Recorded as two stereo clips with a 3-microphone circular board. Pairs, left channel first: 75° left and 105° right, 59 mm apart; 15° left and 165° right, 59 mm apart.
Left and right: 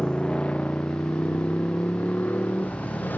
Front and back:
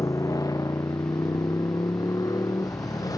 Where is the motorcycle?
Straight ahead; by 3.2 s 15° left.